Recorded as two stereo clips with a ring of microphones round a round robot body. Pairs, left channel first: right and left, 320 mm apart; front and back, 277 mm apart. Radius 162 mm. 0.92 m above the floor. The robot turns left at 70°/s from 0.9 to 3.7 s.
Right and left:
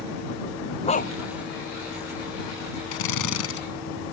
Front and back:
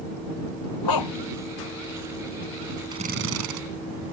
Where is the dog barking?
20° right; by 1.1 s 35° right.